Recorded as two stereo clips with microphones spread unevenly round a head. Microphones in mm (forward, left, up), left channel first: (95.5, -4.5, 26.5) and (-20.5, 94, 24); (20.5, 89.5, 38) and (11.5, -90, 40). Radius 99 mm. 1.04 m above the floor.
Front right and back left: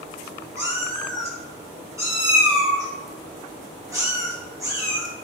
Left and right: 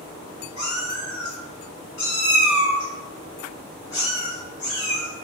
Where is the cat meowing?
70° left, 1.8 m.